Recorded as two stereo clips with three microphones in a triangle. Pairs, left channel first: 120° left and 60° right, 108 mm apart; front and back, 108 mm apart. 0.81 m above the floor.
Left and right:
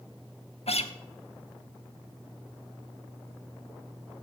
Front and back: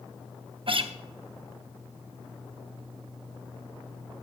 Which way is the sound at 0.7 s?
140° left.